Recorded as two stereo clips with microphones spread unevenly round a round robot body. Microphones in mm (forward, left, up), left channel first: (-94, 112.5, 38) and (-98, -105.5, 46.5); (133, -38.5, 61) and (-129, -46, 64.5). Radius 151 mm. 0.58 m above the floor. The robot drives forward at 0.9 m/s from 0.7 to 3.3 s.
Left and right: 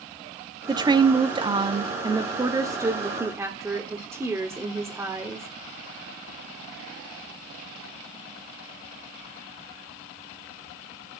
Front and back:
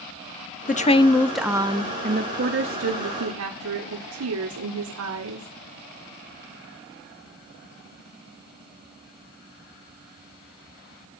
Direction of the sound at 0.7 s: 30° right.